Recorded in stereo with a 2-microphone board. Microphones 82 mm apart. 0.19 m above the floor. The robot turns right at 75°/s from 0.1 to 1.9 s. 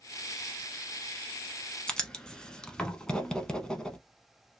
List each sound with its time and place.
1.9 s writing: 10° left (ahead or behind), 0.7 m